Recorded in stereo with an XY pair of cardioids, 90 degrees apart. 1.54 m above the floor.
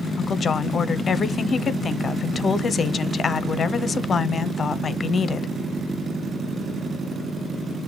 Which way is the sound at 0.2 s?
45° left.